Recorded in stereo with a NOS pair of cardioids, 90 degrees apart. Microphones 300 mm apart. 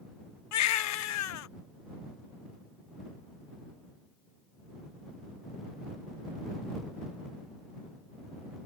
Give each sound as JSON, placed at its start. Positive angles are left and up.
{"t": 0.5, "sound": "a baby crying", "azimuth_deg": 70}